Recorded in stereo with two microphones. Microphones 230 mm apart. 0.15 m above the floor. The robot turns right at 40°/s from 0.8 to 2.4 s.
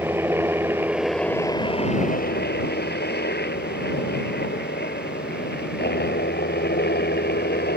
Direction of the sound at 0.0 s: 10° right.